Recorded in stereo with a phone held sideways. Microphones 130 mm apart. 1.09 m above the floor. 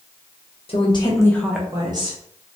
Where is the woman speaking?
50° left (ahead or behind), 0.8 m; by 2.2 s 45° right (ahead or behind), 0.8 m.